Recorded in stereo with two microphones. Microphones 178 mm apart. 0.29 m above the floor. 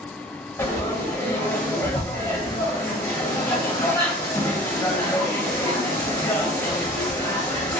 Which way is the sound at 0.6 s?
15° left (ahead or behind).